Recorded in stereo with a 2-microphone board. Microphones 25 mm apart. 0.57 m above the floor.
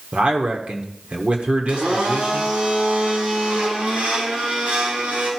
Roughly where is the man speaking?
Right.